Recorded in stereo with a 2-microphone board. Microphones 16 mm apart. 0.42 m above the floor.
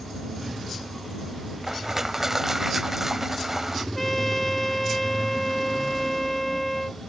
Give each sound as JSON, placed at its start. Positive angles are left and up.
{"t": 1.6, "sound": "crushing", "side_deg": -30}
{"t": 4.0, "sound": "a trumpet", "side_deg": 10}